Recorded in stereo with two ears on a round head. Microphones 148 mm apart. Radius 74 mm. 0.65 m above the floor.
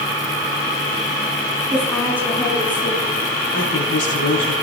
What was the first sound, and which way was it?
A woman speaking, 10° left (ahead or behind).